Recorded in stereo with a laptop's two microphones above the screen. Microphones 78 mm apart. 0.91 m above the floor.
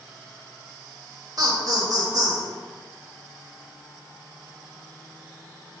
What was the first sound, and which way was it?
Laughter, 50° right (ahead or behind).